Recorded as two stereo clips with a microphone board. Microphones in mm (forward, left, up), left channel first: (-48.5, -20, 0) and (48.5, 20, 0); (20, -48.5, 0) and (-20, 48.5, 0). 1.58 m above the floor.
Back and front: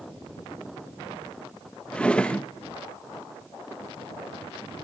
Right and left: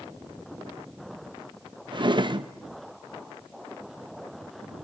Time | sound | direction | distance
1.9 | a drawer | 125° left | 1.0 m